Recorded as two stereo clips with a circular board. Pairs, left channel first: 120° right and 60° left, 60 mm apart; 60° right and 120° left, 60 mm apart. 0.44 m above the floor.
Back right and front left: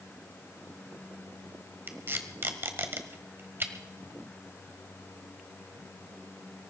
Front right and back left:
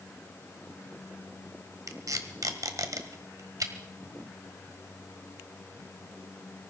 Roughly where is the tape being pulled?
Left.